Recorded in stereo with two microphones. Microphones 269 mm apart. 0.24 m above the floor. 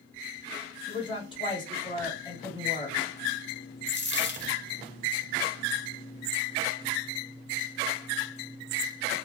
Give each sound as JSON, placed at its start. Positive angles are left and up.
{"t": 0.9, "sound": "a woman speaking", "side_deg": 20, "distance_m": 1.2}
{"t": 3.9, "sound": "a dropped coin", "side_deg": 45, "distance_m": 0.5}